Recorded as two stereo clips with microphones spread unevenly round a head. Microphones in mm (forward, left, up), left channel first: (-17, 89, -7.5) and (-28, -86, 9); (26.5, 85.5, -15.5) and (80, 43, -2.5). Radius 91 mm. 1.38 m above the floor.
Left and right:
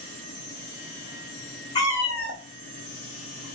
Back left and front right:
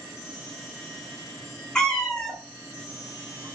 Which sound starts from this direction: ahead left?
A cat meowing, at 1.8 s.